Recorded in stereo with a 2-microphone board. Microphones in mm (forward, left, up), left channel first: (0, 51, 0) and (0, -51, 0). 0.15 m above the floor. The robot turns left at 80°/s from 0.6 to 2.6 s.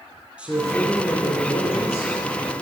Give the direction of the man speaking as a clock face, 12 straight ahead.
6 o'clock.